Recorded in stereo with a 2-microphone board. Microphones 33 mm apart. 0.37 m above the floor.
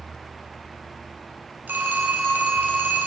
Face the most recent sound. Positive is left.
turn(degrees=-75)  # may be behind; listen again after turning